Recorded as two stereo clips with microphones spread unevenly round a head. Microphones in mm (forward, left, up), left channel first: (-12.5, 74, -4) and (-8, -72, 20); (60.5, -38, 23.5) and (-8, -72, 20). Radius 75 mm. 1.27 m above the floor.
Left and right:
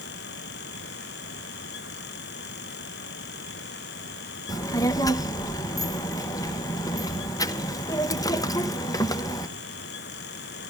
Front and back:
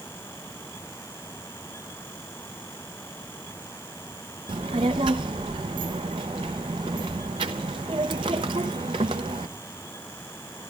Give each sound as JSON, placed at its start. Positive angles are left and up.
{"t": 4.5, "sound": "a child speaking", "azimuth_deg": 160, "distance_m": 0.8}